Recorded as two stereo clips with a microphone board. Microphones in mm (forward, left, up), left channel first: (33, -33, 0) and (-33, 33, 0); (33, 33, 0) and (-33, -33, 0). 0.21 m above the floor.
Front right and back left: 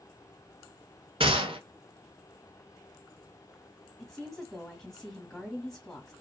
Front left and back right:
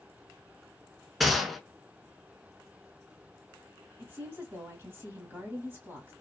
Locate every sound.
1.2 s a gunshot: 135° left, 0.6 m
4.0 s a woman speaking: 130° right, 1.6 m